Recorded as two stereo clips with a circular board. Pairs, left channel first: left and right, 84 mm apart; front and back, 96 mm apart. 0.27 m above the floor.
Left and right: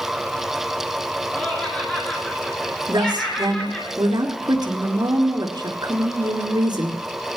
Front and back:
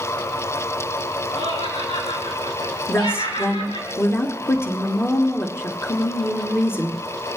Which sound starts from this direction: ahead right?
A woman speaking, at 2.9 s.